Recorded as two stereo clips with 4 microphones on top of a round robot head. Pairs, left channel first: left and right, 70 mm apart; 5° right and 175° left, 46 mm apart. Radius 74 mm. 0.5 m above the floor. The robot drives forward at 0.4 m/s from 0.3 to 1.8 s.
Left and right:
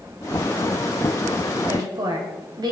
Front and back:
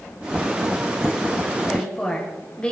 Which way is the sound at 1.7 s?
70° right.